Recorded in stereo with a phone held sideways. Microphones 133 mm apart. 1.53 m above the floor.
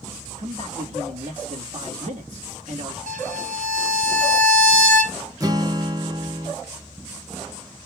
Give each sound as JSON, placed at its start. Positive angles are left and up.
{"t": 0.4, "sound": "a man speaking", "side_deg": -60, "distance_m": 2.0}
{"t": 3.1, "sound": "a violin", "side_deg": -75, "distance_m": 1.0}
{"t": 5.4, "sound": "a guitar", "side_deg": -25, "distance_m": 1.0}